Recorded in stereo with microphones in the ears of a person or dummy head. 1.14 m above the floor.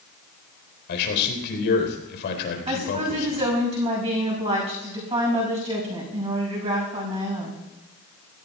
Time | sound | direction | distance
0.9 | a man speaking | 65° left (ahead or behind) | 4 m
2.7 | a woman speaking | 30° right (ahead or behind) | 6 m